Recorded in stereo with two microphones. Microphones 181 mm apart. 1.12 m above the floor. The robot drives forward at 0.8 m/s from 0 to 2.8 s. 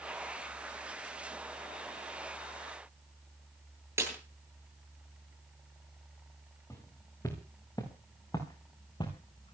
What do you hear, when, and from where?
4.0 s a snare drum: 15° right (ahead or behind), 9 m
6.7 s footsteps: 15° left (ahead or behind), 6.5 m; by 9.6 s 25° left (ahead or behind), 4.5 m